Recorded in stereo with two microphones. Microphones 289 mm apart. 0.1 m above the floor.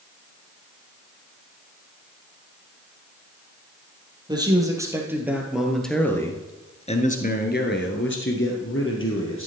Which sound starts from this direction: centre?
A man speaking, at 4.3 s.